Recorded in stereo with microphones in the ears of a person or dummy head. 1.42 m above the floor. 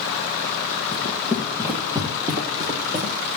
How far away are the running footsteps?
About 2 m.